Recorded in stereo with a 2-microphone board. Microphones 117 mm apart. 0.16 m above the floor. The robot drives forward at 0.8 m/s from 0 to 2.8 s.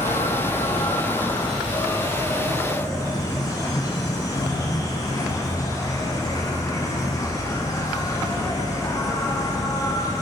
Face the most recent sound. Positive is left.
turn(degrees=30)  # may be behind; listen again after turning